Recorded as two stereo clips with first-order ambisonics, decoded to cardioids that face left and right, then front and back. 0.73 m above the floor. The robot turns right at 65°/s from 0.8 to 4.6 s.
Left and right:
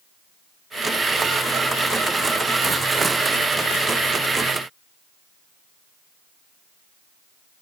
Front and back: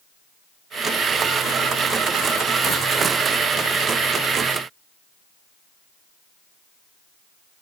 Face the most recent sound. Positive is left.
No sound to turn to.